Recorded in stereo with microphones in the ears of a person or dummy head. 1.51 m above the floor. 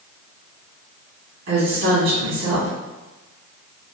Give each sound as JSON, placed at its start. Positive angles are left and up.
{"t": 1.5, "sound": "a woman speaking", "side_deg": -75, "distance_m": 1.5}